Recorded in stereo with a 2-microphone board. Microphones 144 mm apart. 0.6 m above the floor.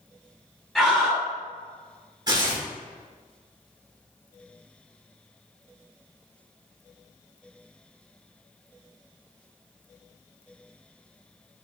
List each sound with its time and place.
0.8 s a scream: centre (ahead or behind), 0.6 m
2.3 s tearing paper: 30° right (ahead or behind), 1.1 m